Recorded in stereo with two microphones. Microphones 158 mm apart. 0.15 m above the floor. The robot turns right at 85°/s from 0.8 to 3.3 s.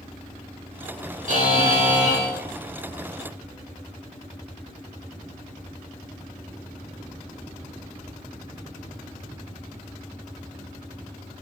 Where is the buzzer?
120° right, 1.2 m; by 2.3 s 30° right, 1.2 m.